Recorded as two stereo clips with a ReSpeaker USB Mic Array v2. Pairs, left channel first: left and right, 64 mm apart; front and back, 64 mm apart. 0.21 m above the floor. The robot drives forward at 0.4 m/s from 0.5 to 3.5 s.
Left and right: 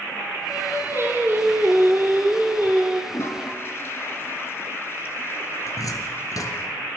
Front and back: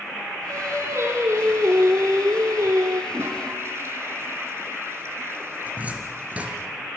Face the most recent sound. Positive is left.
turn(degrees=115)